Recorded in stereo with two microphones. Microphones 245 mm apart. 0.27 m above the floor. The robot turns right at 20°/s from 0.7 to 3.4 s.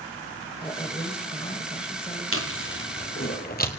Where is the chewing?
60° left (ahead or behind), 1.7 m; by 3.7 s 40° left (ahead or behind), 1.7 m.